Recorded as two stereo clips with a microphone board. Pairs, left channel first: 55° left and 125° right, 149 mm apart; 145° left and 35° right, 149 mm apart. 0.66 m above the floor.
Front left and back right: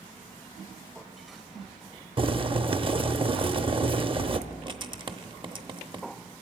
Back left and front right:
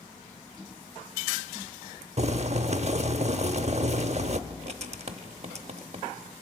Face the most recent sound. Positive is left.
turn(degrees=-70)